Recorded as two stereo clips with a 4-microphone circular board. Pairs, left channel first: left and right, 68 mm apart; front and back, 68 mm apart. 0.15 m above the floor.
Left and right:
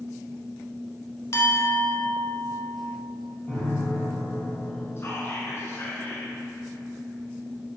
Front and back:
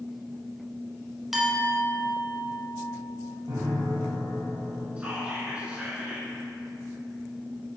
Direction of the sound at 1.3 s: 95° left.